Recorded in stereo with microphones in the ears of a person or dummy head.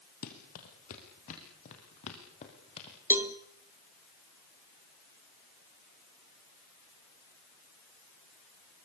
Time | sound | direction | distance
0.2 | running footsteps | 45° left (ahead or behind) | 4 m
3.1 | a cowbell | 15° right (ahead or behind) | 1.2 m